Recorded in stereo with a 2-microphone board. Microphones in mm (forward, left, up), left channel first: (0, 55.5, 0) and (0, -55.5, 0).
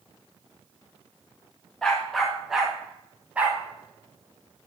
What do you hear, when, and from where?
1.8 s a dog barking: 5° left (ahead or behind), 4 m; by 4.7 s 25° right (ahead or behind), 5 m